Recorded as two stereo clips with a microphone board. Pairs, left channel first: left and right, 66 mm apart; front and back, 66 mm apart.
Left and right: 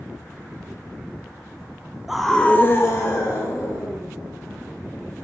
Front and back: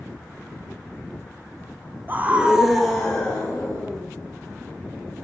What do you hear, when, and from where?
2.1 s a scream: 170° right, 0.9 m; by 4.1 s 70° left, 2 m